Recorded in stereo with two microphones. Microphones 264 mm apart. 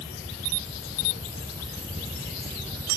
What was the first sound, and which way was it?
Only background noise.